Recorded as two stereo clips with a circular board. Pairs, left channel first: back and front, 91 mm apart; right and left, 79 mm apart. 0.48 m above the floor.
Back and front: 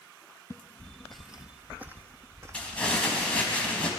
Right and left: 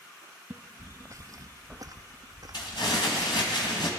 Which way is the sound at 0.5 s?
145° left.